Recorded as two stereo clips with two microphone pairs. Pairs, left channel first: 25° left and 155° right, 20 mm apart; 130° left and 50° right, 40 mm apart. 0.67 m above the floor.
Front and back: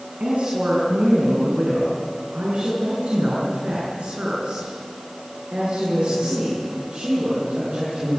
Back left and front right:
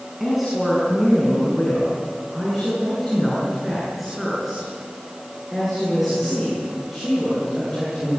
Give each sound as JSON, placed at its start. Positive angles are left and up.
{"t": 0.2, "sound": "a woman speaking", "azimuth_deg": -135, "distance_m": 7.5}